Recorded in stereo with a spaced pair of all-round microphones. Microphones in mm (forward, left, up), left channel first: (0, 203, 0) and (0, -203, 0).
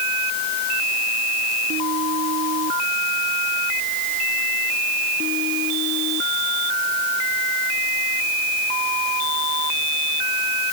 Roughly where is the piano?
I don't hear a piano.